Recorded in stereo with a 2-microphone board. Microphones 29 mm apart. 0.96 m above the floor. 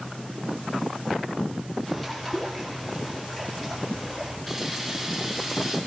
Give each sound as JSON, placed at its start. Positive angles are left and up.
{"t": 1.9, "sound": "a bird", "side_deg": 15, "distance_m": 7.5}
{"t": 4.5, "sound": "a camera shutter", "side_deg": 5, "distance_m": 5.5}